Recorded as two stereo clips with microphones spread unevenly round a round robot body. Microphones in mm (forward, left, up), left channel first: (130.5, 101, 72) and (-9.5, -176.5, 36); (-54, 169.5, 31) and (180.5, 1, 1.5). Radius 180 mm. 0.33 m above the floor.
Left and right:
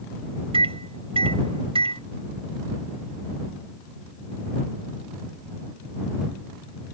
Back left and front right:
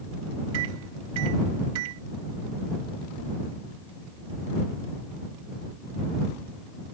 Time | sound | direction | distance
0.5 | a microwave | 50° right | ?